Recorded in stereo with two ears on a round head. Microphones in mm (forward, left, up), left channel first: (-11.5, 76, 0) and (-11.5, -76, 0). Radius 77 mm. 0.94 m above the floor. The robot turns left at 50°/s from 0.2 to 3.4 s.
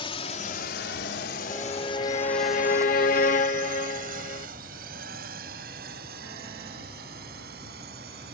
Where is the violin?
160° left; by 4.5 s 65° left.